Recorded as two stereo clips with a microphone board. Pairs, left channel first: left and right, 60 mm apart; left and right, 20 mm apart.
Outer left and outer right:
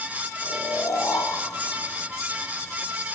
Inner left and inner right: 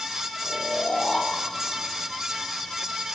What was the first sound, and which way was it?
Snoring, 70° left (ahead or behind).